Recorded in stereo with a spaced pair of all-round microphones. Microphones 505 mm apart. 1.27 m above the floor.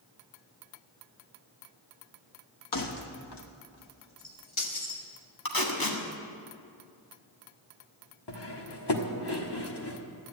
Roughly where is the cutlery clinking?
Left.